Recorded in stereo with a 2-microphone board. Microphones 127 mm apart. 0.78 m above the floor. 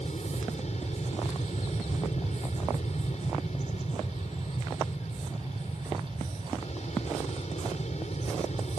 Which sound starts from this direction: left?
An aircraft, at 0.0 s.